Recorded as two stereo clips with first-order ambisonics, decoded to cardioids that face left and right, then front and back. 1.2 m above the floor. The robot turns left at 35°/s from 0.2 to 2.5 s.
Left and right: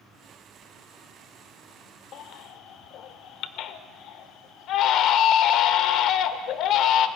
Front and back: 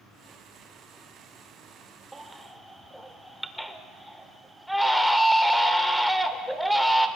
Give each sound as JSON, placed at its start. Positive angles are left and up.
{"t": 2.1, "sound": "a baby crying", "azimuth_deg": 100, "distance_m": 1.0}